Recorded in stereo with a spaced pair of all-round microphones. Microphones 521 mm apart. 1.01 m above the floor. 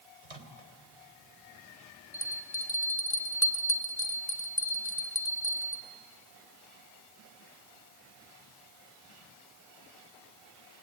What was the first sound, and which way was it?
A microwave, 85° right.